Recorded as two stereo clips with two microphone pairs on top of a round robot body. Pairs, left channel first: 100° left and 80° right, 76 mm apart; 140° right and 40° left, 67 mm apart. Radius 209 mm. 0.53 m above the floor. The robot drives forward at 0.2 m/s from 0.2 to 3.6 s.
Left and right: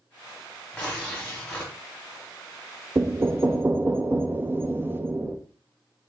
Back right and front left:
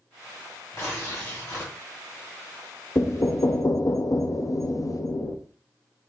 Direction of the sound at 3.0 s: 115° right.